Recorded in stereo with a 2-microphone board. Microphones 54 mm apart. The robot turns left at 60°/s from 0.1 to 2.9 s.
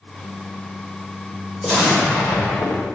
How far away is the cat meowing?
No cat meowing in this recording.